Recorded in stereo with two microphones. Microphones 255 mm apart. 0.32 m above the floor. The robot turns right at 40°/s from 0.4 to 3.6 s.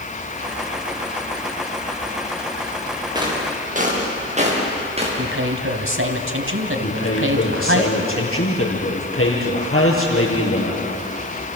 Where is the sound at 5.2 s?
55° right (ahead or behind), 2.5 m.